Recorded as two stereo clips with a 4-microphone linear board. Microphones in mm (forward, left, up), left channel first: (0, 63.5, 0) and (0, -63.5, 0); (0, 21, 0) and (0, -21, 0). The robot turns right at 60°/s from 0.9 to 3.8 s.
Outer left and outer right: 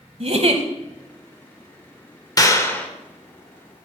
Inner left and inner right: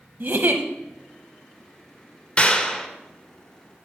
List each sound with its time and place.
0.2 s a giggle: 55° right (ahead or behind), 0.9 m
2.4 s a clap: 130° left, 0.9 m; by 2.9 s 165° left, 0.9 m